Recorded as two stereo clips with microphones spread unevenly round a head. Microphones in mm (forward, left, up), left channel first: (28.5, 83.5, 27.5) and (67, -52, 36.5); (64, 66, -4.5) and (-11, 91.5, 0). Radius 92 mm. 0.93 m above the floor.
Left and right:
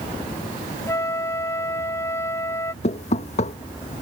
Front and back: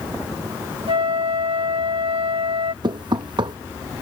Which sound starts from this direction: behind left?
Knocking, at 2.8 s.